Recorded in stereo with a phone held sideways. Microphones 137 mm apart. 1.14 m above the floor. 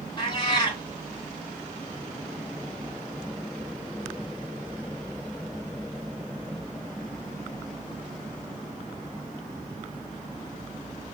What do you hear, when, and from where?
0.2 s a cat meowing: 30° left (ahead or behind), 1.0 m